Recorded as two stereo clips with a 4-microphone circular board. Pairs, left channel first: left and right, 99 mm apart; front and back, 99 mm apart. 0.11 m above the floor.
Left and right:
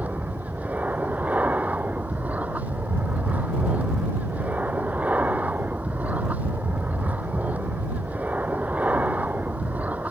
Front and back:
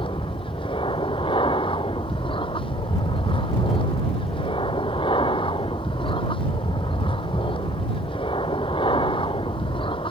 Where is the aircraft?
15° right.